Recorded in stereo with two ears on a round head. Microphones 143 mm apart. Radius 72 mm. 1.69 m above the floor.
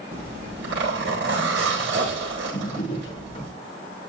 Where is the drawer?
25° left (ahead or behind), 6.5 m.